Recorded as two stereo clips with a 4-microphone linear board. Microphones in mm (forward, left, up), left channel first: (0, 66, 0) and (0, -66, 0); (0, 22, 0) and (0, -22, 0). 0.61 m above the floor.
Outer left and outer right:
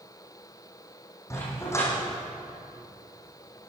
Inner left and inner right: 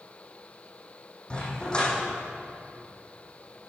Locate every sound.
1.3 s a dog barking: 20° left (ahead or behind), 10 m